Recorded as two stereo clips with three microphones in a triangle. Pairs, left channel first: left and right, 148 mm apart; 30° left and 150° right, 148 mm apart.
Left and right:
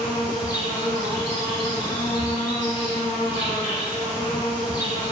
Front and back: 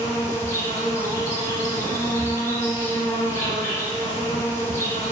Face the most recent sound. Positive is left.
turn(degrees=75)